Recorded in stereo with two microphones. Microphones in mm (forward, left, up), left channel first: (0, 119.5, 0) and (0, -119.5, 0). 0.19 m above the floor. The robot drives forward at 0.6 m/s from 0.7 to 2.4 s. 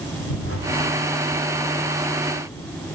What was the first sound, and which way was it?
A whoosh, 65° left (ahead or behind).